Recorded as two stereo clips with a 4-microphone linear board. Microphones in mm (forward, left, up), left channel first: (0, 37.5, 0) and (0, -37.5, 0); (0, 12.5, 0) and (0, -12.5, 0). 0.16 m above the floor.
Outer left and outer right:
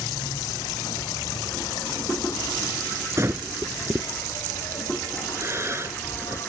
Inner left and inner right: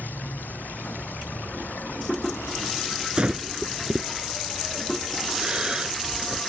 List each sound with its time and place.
0.0 s an insect: 80° left
3.2 s breathing: 40° right (ahead or behind)